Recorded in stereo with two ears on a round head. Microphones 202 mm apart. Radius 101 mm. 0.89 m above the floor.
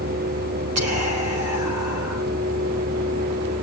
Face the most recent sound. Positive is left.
turn(degrees=-75)  # may be behind; listen again after turning